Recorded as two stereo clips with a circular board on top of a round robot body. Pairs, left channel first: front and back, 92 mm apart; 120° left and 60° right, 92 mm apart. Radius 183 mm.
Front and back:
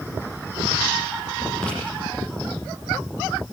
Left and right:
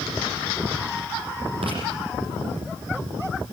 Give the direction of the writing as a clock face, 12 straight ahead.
3 o'clock.